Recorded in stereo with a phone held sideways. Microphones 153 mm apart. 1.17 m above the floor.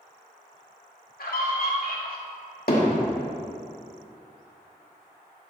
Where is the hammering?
80° left, 2 m.